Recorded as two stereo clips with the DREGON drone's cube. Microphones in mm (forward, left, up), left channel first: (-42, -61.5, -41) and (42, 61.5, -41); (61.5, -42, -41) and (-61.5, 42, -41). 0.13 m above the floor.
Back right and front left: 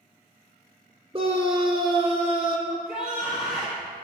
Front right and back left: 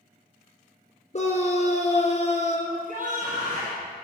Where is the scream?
5° left, 3 m.